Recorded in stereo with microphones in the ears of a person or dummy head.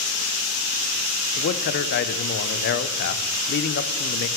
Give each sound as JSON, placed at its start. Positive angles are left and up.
{"t": 1.4, "sound": "a man speaking", "side_deg": 55, "distance_m": 0.5}